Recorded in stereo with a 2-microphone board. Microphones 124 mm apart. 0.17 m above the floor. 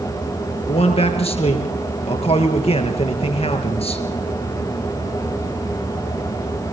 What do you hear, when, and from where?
0.7 s a man speaking: 55° left (ahead or behind), 3.5 m